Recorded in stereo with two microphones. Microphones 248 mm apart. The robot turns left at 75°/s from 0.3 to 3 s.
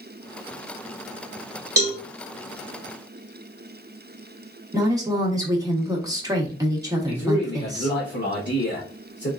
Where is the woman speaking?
15° right (ahead or behind), 1.2 m.